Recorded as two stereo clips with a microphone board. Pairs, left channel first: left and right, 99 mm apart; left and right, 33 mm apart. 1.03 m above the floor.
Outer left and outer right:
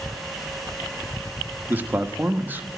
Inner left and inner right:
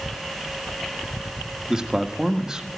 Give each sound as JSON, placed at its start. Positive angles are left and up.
{"t": 1.7, "sound": "a man speaking", "side_deg": -20, "distance_m": 1.2}